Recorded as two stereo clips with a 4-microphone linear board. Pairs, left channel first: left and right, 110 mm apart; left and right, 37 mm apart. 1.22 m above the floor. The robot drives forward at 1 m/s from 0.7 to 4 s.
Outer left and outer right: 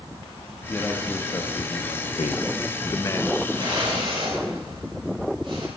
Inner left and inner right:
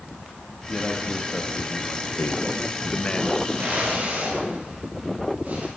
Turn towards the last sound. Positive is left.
turn(degrees=-50)  # may be behind; listen again after turning